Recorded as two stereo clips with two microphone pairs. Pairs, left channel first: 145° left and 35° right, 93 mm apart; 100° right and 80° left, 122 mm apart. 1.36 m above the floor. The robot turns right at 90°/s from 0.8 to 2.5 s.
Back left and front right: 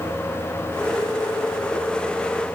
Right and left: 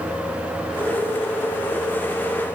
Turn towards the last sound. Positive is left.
No sound to turn to.